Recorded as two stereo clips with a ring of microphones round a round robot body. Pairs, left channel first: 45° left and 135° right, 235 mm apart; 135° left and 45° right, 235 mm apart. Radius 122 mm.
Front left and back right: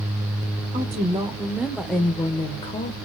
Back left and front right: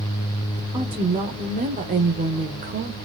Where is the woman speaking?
100° right, 1.1 m; by 3.0 s 10° right, 1.3 m.